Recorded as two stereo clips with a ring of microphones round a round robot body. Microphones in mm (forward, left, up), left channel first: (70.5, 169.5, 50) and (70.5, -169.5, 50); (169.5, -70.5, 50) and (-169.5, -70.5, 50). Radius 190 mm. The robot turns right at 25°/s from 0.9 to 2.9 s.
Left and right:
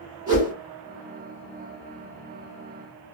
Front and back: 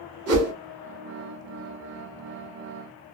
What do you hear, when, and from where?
0.3 s a whoosh: 165° right, 1.1 m